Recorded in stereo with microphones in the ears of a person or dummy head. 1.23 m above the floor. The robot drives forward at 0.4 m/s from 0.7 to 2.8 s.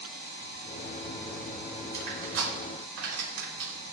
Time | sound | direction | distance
1.9 | crushing | 80° right | 3 m